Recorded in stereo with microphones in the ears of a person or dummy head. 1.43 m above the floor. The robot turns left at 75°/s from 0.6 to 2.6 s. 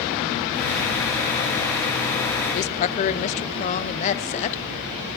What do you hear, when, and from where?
2.5 s a woman speaking: 40° left (ahead or behind), 0.5 m